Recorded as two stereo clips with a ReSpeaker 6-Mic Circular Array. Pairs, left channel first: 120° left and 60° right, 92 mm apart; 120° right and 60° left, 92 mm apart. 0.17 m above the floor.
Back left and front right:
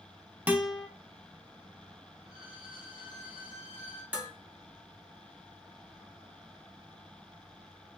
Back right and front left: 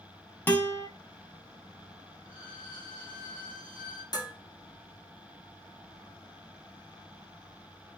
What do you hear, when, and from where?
0.5 s a guitar: 110° right, 0.6 m
2.2 s a violin: 90° right, 1.3 m
4.1 s dishes clattering: 130° right, 1.0 m